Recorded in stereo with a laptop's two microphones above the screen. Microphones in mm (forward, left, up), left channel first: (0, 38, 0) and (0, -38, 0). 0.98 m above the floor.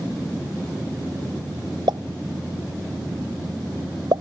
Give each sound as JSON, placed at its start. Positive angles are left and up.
{"t": 1.9, "sound": "a pop", "side_deg": -80}